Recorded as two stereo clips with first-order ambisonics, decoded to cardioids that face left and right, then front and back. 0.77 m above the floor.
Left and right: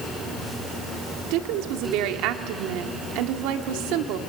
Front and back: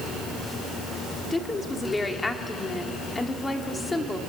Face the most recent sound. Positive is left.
turn(degrees=-80)